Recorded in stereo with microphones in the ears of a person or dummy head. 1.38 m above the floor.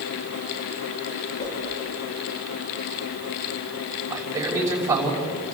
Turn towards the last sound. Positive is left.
turn(degrees=-15)  # may be behind; listen again after turning